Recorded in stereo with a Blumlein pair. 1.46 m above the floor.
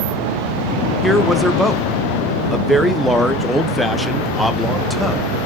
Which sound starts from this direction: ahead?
A man speaking, at 1.0 s.